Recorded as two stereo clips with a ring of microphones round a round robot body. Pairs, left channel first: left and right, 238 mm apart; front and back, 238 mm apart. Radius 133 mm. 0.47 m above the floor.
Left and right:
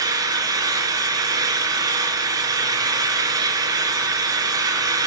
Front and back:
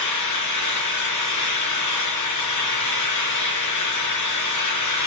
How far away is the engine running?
About 4 m.